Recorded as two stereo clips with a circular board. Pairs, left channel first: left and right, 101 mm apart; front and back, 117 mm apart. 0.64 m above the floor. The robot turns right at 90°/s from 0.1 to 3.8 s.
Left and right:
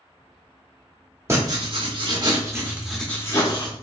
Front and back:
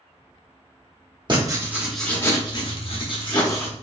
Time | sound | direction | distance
1.3 | writing | 145° right | 1.0 m